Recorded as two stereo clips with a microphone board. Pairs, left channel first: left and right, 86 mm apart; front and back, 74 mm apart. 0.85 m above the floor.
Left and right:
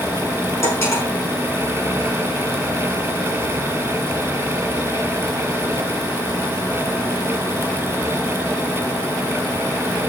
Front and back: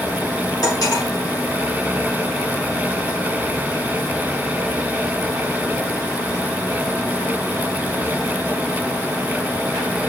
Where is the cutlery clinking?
30° left, 6 m.